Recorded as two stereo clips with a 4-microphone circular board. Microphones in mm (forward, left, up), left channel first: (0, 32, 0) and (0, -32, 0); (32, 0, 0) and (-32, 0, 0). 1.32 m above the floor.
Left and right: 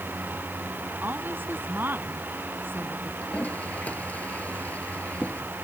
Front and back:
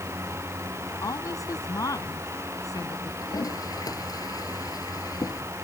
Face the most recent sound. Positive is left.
turn(degrees=25)